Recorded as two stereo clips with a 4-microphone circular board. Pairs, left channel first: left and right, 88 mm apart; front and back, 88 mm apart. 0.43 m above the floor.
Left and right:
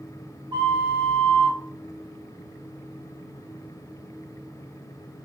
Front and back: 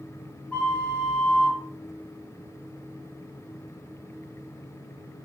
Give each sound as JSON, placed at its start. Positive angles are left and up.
{"t": 0.5, "sound": "a flute", "azimuth_deg": -70, "distance_m": 1.3}